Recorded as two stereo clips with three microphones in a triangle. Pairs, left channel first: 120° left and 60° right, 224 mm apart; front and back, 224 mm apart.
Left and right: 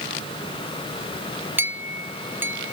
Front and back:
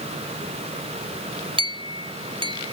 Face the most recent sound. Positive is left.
turn(degrees=-135)